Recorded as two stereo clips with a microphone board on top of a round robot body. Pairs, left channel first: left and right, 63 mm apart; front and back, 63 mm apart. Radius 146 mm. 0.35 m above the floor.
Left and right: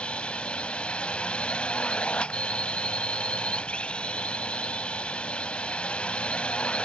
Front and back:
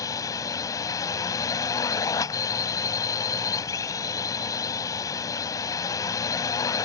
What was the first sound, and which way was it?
A drone, 20° left.